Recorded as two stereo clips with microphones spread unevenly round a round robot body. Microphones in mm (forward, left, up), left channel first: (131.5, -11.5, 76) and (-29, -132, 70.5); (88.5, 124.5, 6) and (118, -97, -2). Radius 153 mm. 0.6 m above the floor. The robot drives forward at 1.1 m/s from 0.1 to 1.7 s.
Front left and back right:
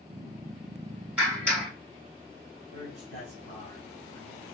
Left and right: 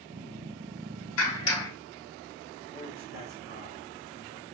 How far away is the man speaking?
About 3 m.